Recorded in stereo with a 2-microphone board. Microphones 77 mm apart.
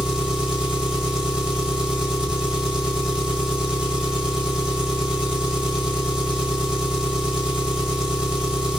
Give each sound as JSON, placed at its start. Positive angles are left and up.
{"t": 0.0, "sound": "an engine running", "side_deg": -10, "distance_m": 1.8}